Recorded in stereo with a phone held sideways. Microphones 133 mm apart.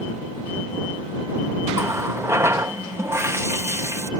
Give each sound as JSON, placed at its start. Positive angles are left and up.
{"t": 1.7, "sound": "a running tap", "side_deg": -20}